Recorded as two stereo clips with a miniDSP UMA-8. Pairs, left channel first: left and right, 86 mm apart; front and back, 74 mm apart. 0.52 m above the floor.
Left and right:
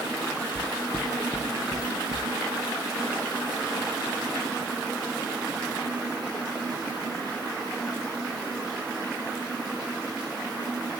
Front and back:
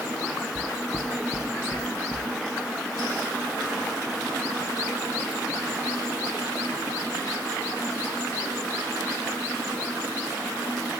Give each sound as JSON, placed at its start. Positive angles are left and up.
{"t": 0.6, "sound": "footsteps", "azimuth_deg": 35, "distance_m": 0.6}